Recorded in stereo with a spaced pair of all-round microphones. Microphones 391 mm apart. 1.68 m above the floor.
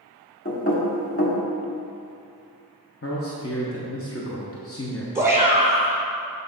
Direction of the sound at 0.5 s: 35° left (ahead or behind).